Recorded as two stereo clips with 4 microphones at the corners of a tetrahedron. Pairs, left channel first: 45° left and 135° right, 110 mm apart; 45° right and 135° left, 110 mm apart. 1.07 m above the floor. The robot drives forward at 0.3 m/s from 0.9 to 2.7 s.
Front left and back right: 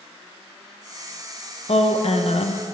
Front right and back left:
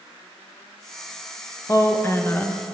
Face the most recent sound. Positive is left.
turn(degrees=30)